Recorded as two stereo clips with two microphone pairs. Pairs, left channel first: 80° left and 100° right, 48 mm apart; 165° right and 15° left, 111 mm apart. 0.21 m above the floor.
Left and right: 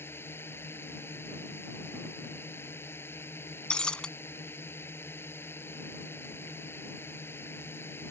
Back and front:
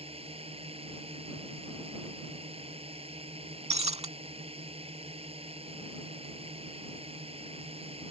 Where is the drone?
40° left.